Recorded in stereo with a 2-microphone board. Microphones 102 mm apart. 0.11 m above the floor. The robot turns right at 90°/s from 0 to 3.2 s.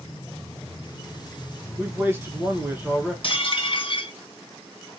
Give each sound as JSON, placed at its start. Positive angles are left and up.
{"t": 1.8, "sound": "a man speaking", "side_deg": -15, "distance_m": 1.2}
{"t": 3.2, "sound": "dishes clattering", "side_deg": 55, "distance_m": 1.8}